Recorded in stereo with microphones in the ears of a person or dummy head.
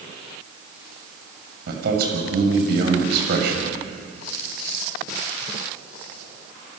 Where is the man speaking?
65° right (ahead or behind), 6.5 m.